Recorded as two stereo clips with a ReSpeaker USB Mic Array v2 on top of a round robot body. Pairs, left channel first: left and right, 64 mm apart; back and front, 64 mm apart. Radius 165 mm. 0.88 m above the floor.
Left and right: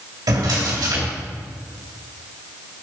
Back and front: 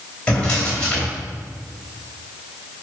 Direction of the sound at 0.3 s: 105° right.